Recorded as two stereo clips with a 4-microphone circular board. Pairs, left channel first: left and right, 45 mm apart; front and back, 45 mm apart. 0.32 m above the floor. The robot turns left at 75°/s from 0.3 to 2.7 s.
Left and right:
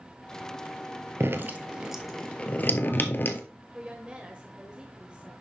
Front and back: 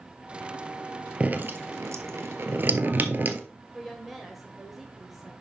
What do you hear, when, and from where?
1.2 s dripping: 115° right, 0.9 m; by 3.4 s 130° left, 0.9 m
3.7 s a woman speaking: 100° right, 1.3 m